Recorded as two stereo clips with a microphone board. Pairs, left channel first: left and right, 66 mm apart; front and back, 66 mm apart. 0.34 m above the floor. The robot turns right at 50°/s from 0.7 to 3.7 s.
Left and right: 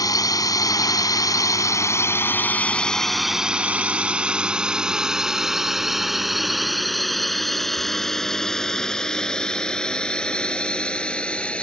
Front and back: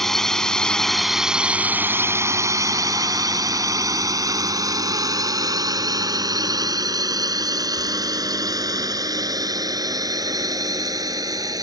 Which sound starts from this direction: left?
A drone, at 0.0 s.